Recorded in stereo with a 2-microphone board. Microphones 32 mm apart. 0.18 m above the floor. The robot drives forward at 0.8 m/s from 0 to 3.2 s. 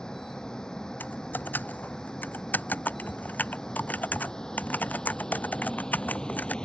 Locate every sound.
0.0 s a vehicle: 25° left (ahead or behind)
1.0 s typing on a keyboard: 85° left; by 6.5 s 65° left (ahead or behind)